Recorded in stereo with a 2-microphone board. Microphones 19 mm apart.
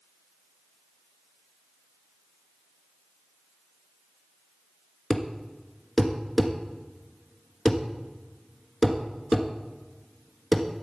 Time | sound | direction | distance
5.1 | a thud | 5° left (ahead or behind) | 1.3 m